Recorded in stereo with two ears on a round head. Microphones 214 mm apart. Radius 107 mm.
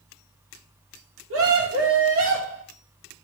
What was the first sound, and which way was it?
A scream, 60° right (ahead or behind).